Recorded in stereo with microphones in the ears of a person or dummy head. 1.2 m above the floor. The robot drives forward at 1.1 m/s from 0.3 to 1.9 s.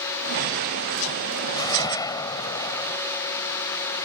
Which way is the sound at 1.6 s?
20° left (ahead or behind).